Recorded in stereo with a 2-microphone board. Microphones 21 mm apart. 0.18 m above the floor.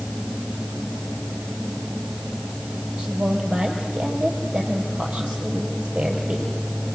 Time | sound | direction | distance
3.0 | a woman speaking | 70° right (ahead or behind) | 5 m